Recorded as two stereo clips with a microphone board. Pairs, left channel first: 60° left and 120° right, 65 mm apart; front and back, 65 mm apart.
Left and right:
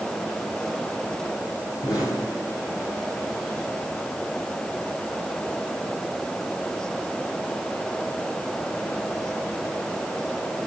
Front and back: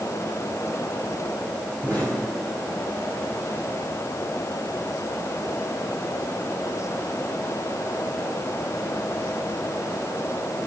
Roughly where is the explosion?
Left.